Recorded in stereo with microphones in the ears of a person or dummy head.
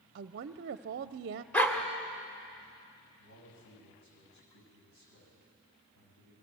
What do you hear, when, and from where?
0.1 s a woman speaking: 55° right (ahead or behind), 0.5 m
1.5 s a dog barking: 5° left (ahead or behind), 1.6 m
3.2 s a man speaking: 65° left (ahead or behind), 9 m